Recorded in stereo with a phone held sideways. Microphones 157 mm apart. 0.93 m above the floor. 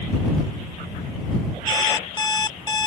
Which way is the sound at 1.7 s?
25° left (ahead or behind).